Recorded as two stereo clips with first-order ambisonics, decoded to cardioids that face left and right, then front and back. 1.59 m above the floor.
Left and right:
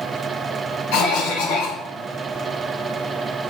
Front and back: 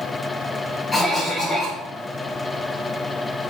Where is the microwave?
I don't hear a microwave.